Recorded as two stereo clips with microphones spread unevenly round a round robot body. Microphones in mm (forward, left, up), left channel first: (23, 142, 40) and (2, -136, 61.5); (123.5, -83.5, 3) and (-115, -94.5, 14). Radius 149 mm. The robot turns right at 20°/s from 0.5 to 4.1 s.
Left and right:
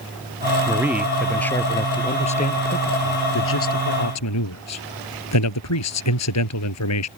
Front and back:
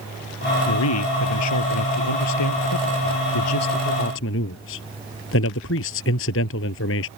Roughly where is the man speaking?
Ahead.